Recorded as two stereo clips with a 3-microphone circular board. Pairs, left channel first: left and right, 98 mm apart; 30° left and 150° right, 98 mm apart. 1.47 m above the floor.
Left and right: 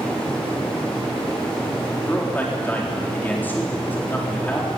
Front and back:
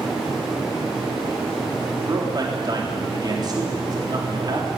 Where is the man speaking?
165° left, 4 m.